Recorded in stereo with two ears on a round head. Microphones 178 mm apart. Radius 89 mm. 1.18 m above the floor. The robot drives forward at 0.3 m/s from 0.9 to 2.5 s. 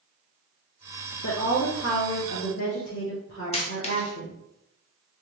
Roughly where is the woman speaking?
Left.